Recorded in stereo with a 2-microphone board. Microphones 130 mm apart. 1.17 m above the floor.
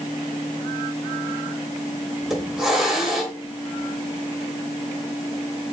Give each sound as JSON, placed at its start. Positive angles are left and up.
{"t": 2.2, "sound": "a hiss", "side_deg": 0, "distance_m": 2.5}